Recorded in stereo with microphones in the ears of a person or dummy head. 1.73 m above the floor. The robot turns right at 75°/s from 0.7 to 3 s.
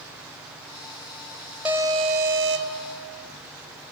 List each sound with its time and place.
1.6 s an alarm: 170° right, 1.0 m; by 2.8 s 85° right, 1.0 m